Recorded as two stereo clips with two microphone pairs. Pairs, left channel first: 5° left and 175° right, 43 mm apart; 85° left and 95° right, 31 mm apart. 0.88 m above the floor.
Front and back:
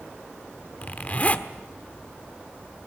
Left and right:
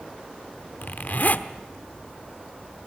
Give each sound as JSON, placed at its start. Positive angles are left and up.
{"t": 0.8, "sound": "a zipper", "azimuth_deg": 60, "distance_m": 1.1}